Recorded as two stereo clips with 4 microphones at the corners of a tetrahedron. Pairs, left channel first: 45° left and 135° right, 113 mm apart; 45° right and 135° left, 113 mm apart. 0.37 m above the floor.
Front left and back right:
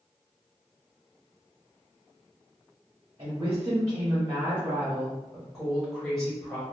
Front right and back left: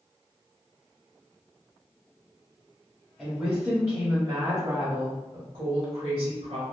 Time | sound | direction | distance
3.2 | a woman speaking | 140° right | 1.1 m